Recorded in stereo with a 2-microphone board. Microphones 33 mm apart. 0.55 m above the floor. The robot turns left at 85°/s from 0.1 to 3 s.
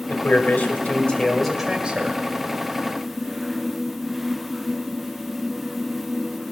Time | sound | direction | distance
0.1 | a man speaking | 120° left | 2 m